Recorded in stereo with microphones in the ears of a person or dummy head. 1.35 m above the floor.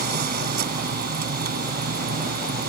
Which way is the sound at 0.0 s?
55° right (ahead or behind).